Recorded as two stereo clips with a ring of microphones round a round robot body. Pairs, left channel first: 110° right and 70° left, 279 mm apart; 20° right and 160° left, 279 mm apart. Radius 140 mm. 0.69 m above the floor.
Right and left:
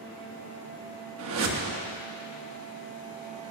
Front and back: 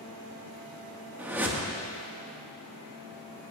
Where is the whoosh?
75° left, 1.1 m.